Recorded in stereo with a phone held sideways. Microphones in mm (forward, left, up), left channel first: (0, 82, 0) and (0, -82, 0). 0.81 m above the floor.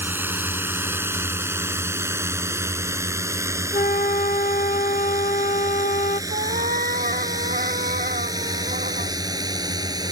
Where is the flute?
50° left (ahead or behind).